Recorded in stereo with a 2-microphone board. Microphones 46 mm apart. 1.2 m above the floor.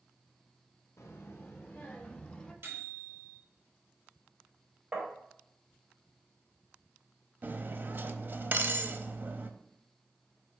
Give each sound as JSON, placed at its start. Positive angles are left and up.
{"t": 1.0, "sound": "a child speaking", "side_deg": 65, "distance_m": 0.9}
{"t": 2.6, "sound": "a microwave", "side_deg": -50, "distance_m": 3.0}
{"t": 4.9, "sound": "tapping", "side_deg": -15, "distance_m": 3.5}
{"t": 7.4, "sound": "cutlery clinking", "side_deg": -40, "distance_m": 0.6}